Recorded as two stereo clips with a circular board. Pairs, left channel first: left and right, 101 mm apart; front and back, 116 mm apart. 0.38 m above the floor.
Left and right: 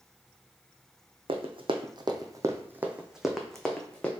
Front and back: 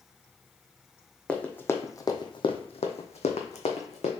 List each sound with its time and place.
1.3 s running footsteps: 80° right, 0.9 m; by 4.1 s 10° left, 1.2 m